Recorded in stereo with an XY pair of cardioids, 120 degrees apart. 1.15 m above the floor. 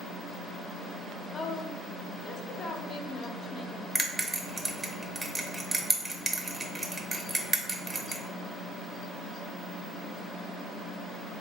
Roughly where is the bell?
Ahead.